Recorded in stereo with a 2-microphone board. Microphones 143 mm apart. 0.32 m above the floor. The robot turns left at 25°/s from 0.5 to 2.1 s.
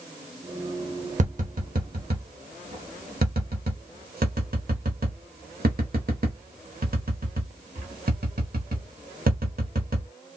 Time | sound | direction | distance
1.2 | tapping | 55° right (ahead or behind) | 1.0 m